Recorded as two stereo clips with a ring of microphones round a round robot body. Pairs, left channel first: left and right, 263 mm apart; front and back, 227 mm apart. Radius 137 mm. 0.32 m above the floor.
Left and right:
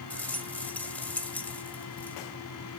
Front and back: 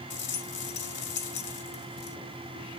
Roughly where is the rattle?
Ahead.